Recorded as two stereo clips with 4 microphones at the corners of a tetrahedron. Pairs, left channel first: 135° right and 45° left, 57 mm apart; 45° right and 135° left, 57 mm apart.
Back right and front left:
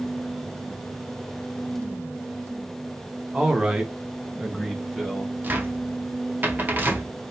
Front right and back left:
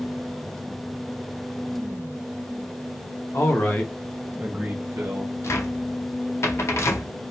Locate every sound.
3.3 s a man speaking: 25° right, 0.9 m; by 5.3 s 135° left, 1.1 m
5.4 s a cupboard door: 10° right, 0.6 m